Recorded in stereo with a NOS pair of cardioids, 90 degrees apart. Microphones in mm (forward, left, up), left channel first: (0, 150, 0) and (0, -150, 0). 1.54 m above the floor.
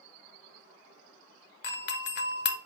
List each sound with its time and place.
1.6 s a doorbell: 40° left, 0.5 m